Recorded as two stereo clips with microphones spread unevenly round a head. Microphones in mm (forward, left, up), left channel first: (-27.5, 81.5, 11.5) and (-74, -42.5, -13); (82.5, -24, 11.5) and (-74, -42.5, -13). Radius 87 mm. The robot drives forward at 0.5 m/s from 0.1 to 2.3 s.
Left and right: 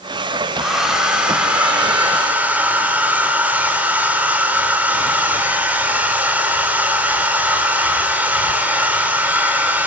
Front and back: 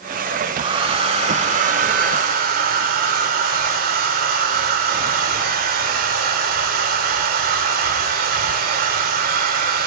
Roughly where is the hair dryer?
Behind left.